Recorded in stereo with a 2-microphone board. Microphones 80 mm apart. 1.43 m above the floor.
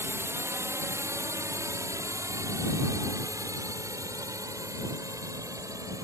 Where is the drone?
30° right (ahead or behind); by 6.0 s 45° right (ahead or behind).